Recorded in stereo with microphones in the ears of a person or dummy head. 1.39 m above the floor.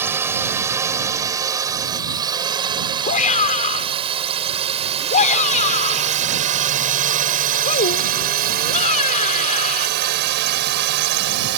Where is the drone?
10° right (ahead or behind); by 11.6 s 60° right (ahead or behind).